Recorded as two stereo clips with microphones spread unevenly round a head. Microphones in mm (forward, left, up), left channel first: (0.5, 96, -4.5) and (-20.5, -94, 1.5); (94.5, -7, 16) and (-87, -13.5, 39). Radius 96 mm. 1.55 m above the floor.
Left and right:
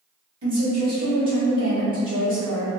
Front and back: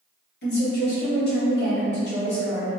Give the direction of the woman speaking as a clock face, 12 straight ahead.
1 o'clock.